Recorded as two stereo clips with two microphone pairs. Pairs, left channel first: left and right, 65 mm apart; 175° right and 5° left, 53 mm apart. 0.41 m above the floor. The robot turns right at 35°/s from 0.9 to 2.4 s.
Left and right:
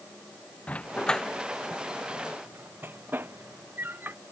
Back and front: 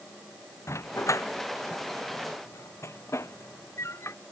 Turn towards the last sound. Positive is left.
turn(degrees=-150)